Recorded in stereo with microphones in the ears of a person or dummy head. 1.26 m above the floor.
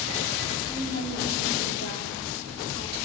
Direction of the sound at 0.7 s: 80° right.